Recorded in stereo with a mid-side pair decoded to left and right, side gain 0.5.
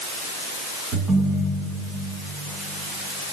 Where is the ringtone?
55° right, 6 m.